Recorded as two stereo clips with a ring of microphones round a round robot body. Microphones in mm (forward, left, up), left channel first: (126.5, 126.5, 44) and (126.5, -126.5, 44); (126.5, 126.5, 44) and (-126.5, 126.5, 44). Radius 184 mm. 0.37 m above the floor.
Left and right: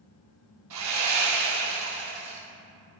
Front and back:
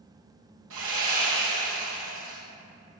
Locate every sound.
0.7 s sawing: 125° right, 2.5 m